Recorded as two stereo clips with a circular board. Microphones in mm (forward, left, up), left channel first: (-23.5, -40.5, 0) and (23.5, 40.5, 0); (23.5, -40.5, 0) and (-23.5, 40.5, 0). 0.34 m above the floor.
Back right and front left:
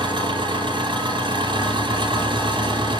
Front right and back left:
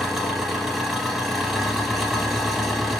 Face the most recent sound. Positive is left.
turn(degrees=35)